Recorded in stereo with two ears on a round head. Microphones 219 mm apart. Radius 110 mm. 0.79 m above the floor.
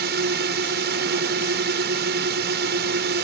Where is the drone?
45° right (ahead or behind).